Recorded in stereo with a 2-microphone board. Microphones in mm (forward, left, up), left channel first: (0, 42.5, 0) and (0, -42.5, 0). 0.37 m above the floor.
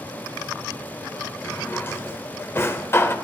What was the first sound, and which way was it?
A drawer, 30° left (ahead or behind).